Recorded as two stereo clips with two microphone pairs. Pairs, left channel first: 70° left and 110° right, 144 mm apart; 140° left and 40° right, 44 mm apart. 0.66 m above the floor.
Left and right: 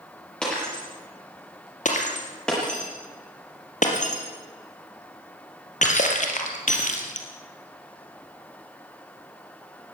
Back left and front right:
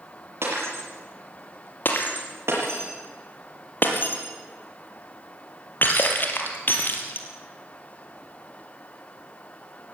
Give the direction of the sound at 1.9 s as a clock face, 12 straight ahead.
9 o'clock.